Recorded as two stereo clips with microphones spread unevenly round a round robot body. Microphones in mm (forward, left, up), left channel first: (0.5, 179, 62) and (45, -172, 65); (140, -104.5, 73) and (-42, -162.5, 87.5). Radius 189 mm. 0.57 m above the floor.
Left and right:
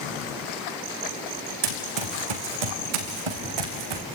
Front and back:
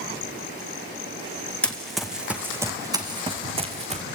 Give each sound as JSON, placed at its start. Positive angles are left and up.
{"t": 1.6, "sound": "running footsteps", "azimuth_deg": -65, "distance_m": 3.0}